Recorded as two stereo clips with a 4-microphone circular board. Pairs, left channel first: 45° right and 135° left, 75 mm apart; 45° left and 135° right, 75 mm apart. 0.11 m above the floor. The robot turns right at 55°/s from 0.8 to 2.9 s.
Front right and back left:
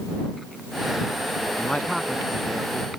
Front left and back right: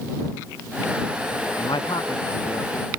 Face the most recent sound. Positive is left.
turn(degrees=100)